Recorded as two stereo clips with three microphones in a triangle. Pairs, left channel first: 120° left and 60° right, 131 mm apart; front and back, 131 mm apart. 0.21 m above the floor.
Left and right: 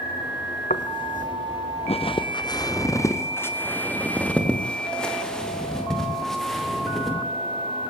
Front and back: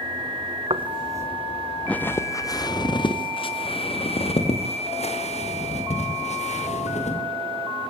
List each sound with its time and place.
0.7 s footsteps: 135° left, 1.5 m; by 7.2 s 30° left, 7 m